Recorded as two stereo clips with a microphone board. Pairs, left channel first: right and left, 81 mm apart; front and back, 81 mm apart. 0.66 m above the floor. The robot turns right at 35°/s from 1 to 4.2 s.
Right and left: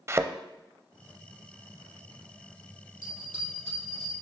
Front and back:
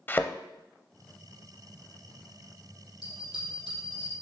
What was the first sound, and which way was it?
A thud, 55° left.